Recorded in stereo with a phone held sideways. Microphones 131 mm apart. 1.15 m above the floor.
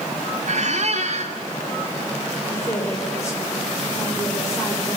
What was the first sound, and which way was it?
A squeak, 60° right (ahead or behind).